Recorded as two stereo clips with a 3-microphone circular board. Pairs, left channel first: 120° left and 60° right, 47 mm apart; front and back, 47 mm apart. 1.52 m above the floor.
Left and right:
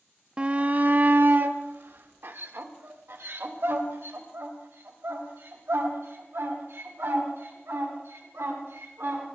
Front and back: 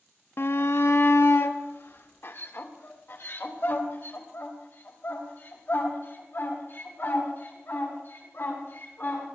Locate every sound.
0.4 s a shout: 5° left, 0.5 m; by 9.3 s 40° right, 6 m